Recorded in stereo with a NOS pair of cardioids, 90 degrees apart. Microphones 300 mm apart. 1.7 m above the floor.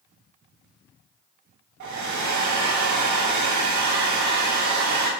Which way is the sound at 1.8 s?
65° right.